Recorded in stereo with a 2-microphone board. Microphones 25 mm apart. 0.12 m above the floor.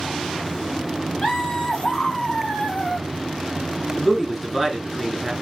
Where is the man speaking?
10° right (ahead or behind), 1.4 m.